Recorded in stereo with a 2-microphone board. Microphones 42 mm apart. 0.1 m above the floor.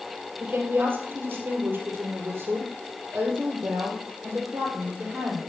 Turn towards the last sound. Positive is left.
turn(degrees=-50)  # may be behind; listen again after turning